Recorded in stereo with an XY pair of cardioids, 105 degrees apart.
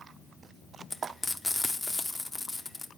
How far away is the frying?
About 0.7 m.